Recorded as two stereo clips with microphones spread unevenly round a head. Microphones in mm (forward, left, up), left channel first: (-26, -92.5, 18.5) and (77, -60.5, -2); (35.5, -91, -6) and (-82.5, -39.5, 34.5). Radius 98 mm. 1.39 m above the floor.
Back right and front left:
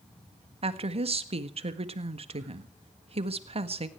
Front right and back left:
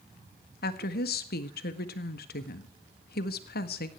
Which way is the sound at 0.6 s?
15° right.